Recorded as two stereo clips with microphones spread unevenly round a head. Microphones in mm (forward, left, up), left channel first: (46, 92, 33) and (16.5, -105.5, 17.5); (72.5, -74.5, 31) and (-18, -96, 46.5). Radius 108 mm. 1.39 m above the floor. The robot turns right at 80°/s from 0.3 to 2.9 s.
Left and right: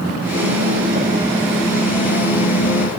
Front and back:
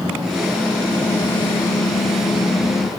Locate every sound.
0.4 s typing on a keyboard: 105° right, 7.5 m; by 2.9 s 95° left, 7.5 m